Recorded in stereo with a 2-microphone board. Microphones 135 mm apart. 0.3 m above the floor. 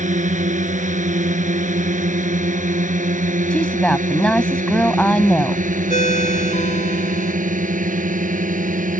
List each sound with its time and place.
0.0 s a drone: 65° right (ahead or behind); by 9.0 s 75° right (ahead or behind)
3.5 s a woman speaking: 10° left (ahead or behind)
5.9 s a ringtone: 65° left (ahead or behind)